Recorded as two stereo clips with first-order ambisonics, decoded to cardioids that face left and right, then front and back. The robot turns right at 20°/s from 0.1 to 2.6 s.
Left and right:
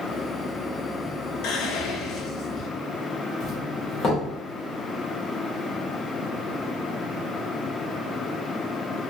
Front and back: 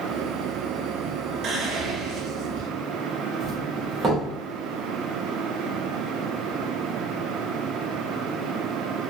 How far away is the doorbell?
About 0.9 m.